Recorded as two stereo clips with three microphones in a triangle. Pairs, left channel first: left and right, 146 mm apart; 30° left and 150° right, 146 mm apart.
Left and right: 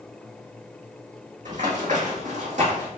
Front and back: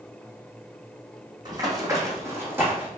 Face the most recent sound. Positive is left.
turn(degrees=-75)